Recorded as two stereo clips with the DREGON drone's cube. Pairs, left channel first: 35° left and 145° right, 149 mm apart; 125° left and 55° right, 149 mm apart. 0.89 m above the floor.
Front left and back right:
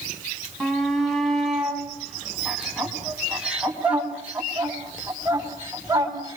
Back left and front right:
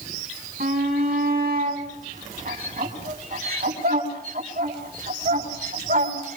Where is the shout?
55° right, 9.5 m; by 6.4 s 75° right, 7 m.